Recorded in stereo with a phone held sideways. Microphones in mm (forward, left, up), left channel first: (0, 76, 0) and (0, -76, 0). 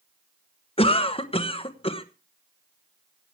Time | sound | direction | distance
0.8 | a cough | 40° left (ahead or behind) | 1.3 m